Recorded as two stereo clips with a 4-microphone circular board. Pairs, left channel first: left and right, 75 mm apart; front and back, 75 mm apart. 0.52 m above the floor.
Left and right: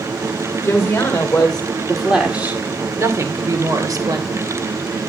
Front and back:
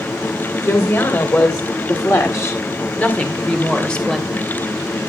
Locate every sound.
0.6 s a woman speaking: 35° left, 2.5 m; by 4.5 s 85° right, 3 m